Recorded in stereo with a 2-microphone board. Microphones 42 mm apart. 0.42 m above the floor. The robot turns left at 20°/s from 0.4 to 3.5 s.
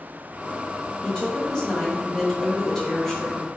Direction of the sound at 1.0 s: 20° left (ahead or behind).